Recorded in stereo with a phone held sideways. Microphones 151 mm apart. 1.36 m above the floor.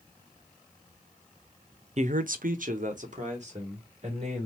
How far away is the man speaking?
About 0.5 m.